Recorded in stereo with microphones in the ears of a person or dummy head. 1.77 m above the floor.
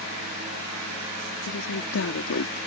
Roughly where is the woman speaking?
Left.